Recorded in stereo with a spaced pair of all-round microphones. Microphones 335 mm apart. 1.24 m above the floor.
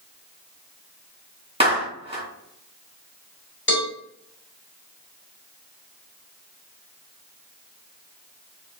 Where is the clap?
15° right (ahead or behind), 1.3 m.